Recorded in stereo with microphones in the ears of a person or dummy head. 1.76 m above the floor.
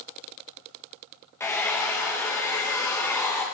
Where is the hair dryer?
20° left (ahead or behind), 1.4 m.